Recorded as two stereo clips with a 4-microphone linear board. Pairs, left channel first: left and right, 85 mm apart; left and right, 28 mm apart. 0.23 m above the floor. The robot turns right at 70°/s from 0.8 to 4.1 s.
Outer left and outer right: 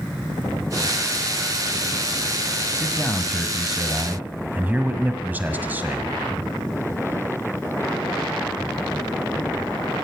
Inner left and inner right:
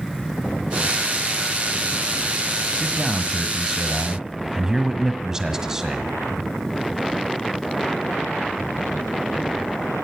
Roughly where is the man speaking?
Behind left.